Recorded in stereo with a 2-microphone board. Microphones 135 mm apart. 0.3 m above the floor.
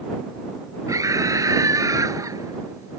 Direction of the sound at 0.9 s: 25° right (ahead or behind).